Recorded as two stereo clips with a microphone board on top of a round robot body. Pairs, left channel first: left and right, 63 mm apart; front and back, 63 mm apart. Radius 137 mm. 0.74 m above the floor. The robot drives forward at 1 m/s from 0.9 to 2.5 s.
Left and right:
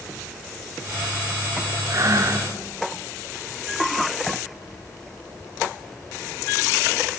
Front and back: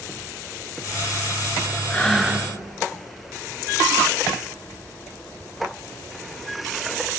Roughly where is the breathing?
Ahead right.